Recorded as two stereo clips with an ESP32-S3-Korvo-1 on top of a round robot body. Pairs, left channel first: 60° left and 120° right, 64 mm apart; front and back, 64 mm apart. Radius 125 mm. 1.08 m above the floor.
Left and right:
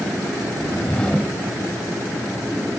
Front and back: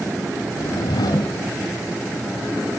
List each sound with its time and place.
0.5 s a whoosh: 15° right